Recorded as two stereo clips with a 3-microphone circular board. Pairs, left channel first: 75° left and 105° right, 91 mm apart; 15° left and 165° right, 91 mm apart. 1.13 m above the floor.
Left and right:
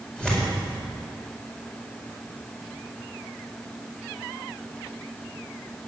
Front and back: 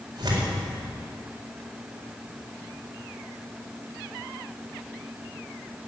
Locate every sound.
0.2 s tearing paper: 155° left, 4.5 m